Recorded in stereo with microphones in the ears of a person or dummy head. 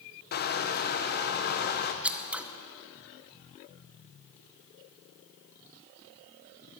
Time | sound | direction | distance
0.3 | crushing | 45° left (ahead or behind) | 1.1 m
2.0 | scissors | centre (ahead or behind) | 0.9 m